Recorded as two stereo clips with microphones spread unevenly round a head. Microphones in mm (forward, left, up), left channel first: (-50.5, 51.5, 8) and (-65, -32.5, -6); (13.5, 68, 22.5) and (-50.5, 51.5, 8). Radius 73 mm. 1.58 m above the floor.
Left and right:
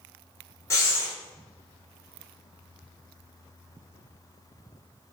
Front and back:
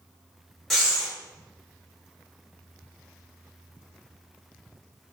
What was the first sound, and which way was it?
Breathing, 85° left.